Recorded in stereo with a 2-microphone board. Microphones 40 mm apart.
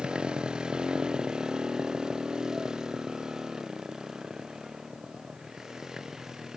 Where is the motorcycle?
25° right (ahead or behind); by 6.6 s 15° right (ahead or behind).